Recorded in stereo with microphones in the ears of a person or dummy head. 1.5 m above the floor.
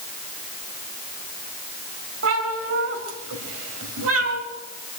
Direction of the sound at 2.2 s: 75° right (ahead or behind).